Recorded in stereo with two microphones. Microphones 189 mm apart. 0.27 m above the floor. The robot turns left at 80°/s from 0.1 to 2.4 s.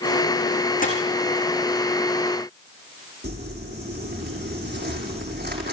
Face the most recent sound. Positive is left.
turn(degrees=-60)  # may be behind; listen again after turning